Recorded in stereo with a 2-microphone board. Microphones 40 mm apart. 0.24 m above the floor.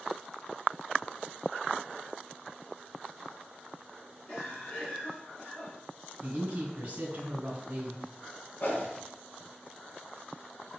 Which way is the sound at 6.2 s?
40° right (ahead or behind).